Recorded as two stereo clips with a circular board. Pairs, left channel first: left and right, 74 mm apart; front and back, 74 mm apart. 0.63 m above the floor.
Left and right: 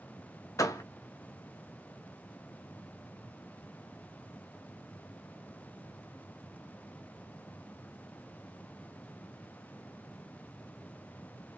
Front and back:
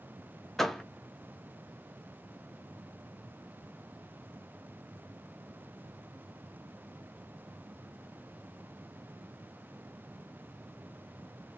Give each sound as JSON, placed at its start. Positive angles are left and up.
{"t": 0.6, "sound": "a door slam", "azimuth_deg": 85, "distance_m": 0.6}